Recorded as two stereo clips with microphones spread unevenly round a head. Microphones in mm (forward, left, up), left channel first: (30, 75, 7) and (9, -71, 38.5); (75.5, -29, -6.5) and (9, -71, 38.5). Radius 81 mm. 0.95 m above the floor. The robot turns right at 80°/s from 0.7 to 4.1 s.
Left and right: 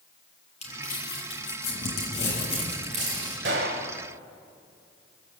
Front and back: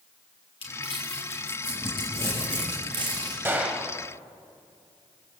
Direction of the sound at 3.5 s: 95° right.